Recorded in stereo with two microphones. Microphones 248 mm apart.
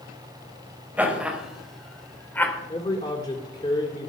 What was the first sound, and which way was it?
Laughter, 5° right (ahead or behind).